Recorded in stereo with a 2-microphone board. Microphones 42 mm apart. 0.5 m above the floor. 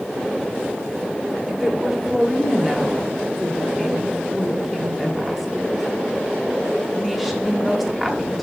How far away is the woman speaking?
About 1.2 m.